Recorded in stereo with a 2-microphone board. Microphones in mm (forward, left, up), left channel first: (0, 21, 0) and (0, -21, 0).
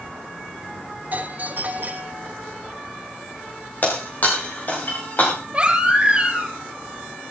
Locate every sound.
1.1 s a doorbell: 45° right (ahead or behind), 3 m
3.8 s breaking glass: 45° left (ahead or behind), 6.5 m
5.5 s a baby crying: 25° right (ahead or behind), 4.5 m